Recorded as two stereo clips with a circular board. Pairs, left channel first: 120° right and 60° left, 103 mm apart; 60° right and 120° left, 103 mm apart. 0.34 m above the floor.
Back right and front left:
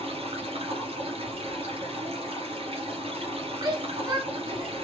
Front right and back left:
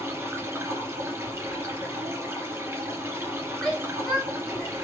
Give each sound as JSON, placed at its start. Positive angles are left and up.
{"t": 0.0, "sound": "running water", "azimuth_deg": 55, "distance_m": 2.5}
{"t": 3.6, "sound": "a shout", "azimuth_deg": 20, "distance_m": 1.2}